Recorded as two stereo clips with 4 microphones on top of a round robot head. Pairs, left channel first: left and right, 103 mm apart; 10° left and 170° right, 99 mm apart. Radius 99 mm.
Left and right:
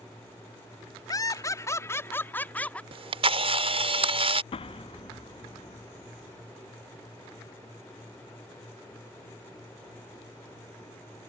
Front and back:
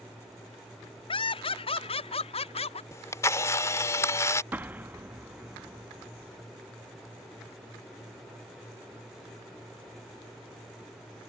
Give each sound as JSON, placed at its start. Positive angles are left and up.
{"t": 1.1, "sound": "laughter", "azimuth_deg": 35}
{"t": 2.9, "sound": "a camera shutter", "azimuth_deg": -60}
{"t": 4.5, "sound": "an explosion", "azimuth_deg": 120}